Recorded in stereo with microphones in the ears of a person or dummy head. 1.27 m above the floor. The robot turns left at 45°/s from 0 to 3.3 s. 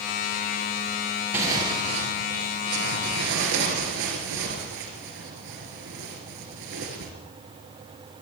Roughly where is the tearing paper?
Ahead.